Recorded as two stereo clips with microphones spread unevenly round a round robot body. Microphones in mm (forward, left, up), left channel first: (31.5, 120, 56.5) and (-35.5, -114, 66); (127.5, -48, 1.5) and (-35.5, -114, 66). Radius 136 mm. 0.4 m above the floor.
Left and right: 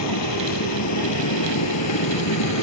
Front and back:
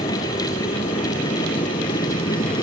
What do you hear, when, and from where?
0.0 s a vehicle: 90° left